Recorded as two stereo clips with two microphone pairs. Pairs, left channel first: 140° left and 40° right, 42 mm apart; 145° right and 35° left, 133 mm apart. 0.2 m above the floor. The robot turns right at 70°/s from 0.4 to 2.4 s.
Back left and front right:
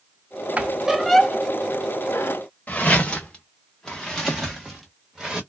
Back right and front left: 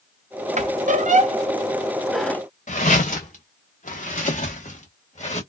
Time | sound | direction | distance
0.6 | a squeak | 15° left | 0.5 m
2.7 | footsteps | 165° right | 1.4 m